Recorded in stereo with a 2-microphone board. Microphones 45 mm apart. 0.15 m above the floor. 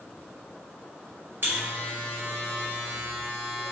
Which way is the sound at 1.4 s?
50° right (ahead or behind).